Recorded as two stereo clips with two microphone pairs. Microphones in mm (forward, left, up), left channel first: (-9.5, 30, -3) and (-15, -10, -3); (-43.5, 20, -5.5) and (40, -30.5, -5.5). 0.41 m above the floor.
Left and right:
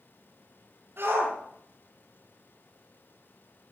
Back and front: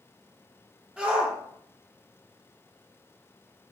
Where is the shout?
110° right, 9 m.